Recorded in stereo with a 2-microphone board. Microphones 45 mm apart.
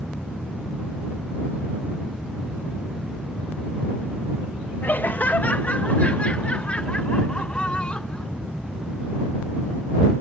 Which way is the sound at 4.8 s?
45° left (ahead or behind).